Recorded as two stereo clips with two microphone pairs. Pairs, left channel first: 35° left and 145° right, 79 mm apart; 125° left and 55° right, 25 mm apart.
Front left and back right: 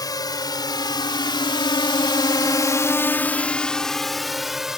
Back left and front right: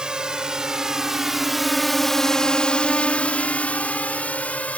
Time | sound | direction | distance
0.0 | a drone | 5° left | ?